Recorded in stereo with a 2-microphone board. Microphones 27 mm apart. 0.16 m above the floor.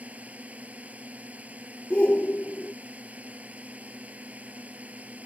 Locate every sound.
0.0 s a drone: 65° right (ahead or behind)
1.9 s a shout: 45° left (ahead or behind)